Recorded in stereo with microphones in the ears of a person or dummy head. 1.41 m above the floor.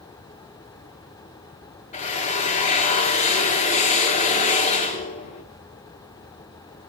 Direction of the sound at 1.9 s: 30° left (ahead or behind).